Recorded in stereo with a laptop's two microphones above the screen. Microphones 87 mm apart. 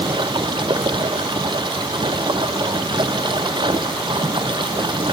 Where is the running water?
55° right (ahead or behind).